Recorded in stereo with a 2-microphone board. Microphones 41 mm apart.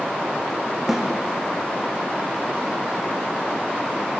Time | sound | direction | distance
0.9 | a snare drum | 5° right (ahead or behind) | 4.5 m